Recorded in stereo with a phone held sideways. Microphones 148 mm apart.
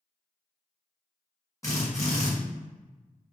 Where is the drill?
20° left (ahead or behind), 1.3 m.